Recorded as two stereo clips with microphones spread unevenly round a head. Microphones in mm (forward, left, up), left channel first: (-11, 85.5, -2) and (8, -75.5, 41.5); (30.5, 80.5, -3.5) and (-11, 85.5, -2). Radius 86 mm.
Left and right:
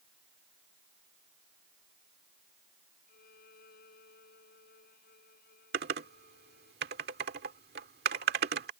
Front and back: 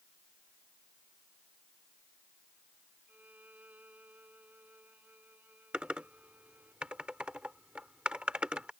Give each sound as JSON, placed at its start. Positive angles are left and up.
{"t": 3.1, "sound": "a violin", "azimuth_deg": 130}
{"t": 5.7, "sound": "typing on a keyboard", "azimuth_deg": -105}